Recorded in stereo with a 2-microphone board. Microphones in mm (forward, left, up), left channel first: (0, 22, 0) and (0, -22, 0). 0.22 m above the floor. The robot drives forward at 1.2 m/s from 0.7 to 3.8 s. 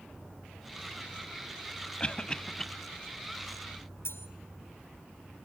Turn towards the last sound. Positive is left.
turn(degrees=70)  # may be behind; listen again after turning